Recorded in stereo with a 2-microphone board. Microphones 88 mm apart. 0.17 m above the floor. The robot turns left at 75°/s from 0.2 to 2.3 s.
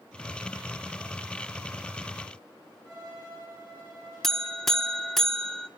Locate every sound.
2.9 s a violin: 40° right (ahead or behind), 9.5 m
4.2 s a buzzer: 5° left (ahead or behind), 0.7 m